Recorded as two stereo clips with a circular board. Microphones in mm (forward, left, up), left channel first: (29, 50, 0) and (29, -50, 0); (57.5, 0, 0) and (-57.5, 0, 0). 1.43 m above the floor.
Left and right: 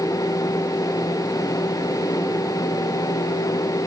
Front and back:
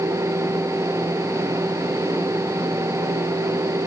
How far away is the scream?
No scream in this recording.